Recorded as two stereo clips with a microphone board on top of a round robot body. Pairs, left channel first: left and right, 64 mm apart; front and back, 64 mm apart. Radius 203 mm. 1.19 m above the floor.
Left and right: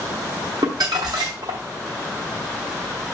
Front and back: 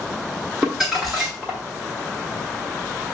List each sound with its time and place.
0.6 s crumpling: 95° right, 0.8 m